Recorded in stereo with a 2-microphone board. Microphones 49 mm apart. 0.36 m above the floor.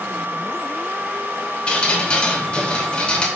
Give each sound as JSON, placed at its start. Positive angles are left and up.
{"t": 1.7, "sound": "dripping", "side_deg": 25, "distance_m": 0.7}